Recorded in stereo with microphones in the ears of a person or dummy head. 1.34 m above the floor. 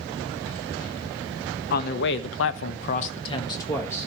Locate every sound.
1.7 s a man speaking: 55° left (ahead or behind), 1.2 m; by 4.1 s 10° left (ahead or behind), 1.5 m